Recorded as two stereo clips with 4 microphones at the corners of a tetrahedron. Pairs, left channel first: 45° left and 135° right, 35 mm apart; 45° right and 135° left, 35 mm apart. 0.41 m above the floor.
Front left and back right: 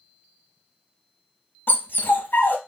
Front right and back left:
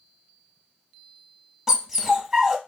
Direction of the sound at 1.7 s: 60° left.